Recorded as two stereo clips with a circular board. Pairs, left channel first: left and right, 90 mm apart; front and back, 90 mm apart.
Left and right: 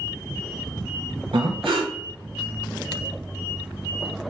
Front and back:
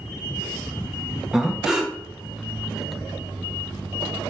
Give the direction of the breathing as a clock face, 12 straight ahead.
3 o'clock.